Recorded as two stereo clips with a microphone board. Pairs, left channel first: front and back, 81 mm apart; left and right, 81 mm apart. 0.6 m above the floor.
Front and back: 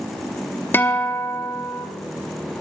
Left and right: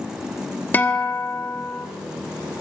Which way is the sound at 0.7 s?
40° left.